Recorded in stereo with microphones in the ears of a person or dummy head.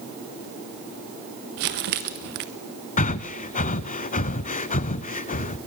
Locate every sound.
1.6 s crumpling: 50° right (ahead or behind), 0.8 m
3.0 s breathing: 45° left (ahead or behind), 0.6 m